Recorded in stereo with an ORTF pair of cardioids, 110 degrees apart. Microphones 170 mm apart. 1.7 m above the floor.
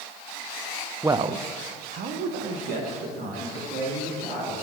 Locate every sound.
1.0 s a man speaking: 10° right, 0.7 m; by 4.5 s 75° right, 5.5 m